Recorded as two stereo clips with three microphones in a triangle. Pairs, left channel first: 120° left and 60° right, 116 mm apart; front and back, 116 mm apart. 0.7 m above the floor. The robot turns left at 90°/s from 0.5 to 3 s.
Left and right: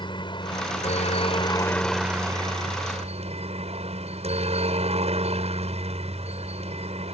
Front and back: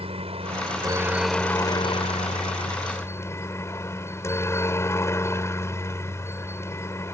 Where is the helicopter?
160° left; by 7.2 s 65° right.